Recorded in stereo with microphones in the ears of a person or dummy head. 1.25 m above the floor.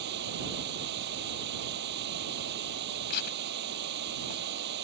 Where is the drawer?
I don't hear a drawer.